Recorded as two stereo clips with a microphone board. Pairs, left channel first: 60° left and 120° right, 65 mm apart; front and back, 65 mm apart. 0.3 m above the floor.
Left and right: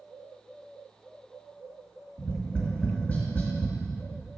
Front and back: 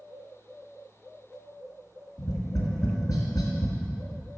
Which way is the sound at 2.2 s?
5° right.